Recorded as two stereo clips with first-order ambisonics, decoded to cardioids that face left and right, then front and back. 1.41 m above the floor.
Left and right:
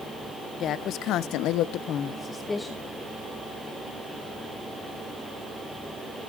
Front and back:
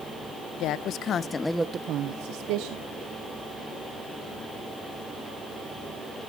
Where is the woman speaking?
40° left, 1.0 m; by 2.9 s 175° left, 1.2 m.